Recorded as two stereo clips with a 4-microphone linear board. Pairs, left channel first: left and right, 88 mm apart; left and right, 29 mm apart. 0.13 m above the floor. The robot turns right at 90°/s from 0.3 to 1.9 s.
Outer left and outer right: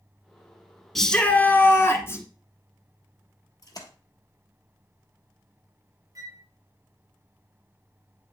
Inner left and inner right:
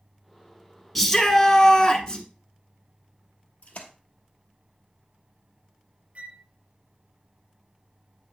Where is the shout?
5° left, 1.2 m; by 2.2 s 90° left, 1.2 m.